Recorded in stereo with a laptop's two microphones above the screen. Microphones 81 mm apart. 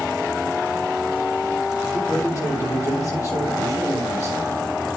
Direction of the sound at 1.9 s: 40° left (ahead or behind).